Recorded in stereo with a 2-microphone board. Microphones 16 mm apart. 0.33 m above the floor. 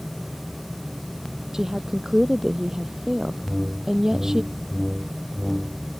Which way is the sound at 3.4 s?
10° right (ahead or behind).